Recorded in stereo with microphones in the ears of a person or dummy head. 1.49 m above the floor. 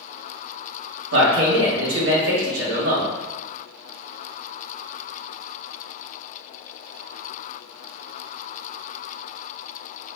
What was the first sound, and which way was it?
A man speaking, 80° right.